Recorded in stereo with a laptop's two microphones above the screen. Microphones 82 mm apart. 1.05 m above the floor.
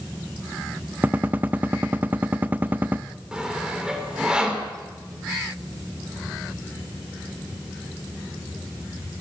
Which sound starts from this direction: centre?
Sawing, at 3.3 s.